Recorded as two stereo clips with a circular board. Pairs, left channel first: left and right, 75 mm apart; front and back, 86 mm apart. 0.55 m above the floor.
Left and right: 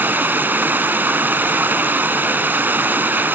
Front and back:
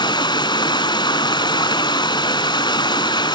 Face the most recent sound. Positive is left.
turn(degrees=-25)